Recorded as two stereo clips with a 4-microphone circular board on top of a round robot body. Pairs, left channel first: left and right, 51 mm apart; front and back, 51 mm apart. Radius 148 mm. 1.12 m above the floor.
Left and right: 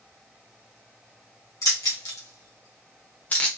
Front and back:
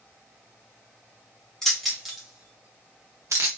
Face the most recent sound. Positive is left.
turn(degrees=160)